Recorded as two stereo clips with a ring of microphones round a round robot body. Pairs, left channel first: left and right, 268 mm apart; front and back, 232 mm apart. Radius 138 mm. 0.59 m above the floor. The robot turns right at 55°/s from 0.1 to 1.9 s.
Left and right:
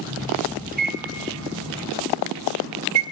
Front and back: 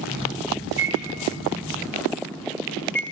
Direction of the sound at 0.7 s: 145° right.